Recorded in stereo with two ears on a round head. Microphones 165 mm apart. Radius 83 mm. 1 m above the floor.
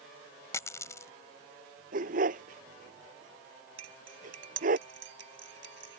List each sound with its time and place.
0.5 s a dropped coin: 15° left (ahead or behind)
1.9 s a dog barking: 45° right (ahead or behind)
3.8 s cutlery clinking: 70° right (ahead or behind)